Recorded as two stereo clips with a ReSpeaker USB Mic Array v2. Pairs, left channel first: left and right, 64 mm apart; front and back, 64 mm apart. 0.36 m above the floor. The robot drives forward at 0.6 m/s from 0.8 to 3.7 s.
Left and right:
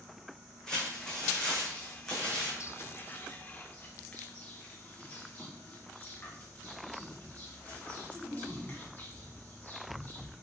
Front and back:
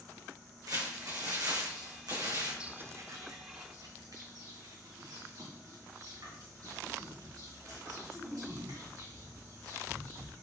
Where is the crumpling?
170° left, 3.5 m.